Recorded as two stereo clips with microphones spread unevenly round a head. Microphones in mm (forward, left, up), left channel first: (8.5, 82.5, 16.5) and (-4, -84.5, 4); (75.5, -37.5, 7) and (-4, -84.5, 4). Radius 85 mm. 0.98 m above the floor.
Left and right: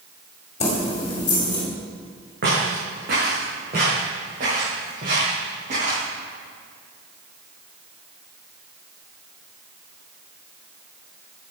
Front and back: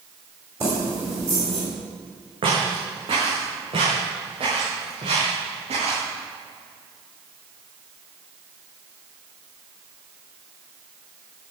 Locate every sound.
0.6 s keys jangling: 140° left, 2 m; by 1.6 s 150° left, 3 m
2.4 s footsteps: 125° right, 4 m; by 6.0 s 145° right, 7.5 m